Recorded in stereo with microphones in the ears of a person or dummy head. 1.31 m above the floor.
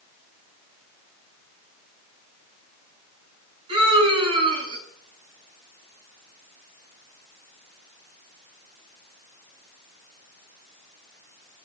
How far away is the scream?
About 9 m.